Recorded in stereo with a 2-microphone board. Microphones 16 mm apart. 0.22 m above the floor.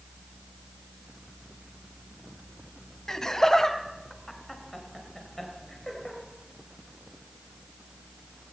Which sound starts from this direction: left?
Laughter, at 3.1 s.